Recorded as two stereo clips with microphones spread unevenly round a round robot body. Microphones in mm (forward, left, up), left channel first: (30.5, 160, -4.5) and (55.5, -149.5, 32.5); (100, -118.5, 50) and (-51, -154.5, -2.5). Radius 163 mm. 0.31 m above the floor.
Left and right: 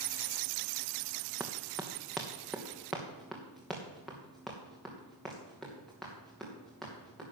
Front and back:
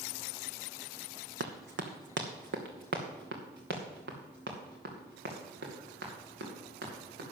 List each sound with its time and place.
1.4 s running footsteps: 170° right, 1.2 m; by 7.2 s 175° right, 4.5 m